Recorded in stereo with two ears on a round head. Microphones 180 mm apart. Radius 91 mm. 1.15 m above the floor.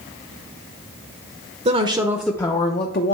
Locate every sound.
1.6 s a woman speaking: 35° right (ahead or behind), 0.7 m; by 3.1 s 55° left (ahead or behind), 0.7 m